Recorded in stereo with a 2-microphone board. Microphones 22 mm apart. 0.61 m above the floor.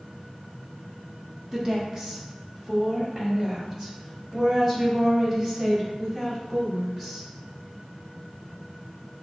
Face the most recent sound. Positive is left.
turn(degrees=-10)  # may be behind; listen again after turning